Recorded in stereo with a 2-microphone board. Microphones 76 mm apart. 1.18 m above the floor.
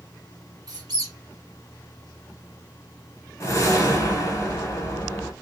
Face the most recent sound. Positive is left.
turn(degrees=40)  # may be behind; listen again after turning